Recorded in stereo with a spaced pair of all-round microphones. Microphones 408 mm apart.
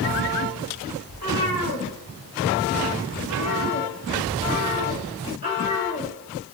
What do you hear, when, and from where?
1.1 s a cat meowing: 60° left (ahead or behind), 3 m; by 6.1 s 70° left (ahead or behind), 4.5 m